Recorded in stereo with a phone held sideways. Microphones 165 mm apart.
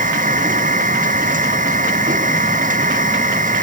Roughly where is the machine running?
Right.